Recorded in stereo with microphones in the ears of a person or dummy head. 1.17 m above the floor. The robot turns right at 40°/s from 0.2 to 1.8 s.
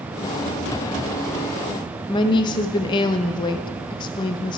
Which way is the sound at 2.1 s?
25° left (ahead or behind).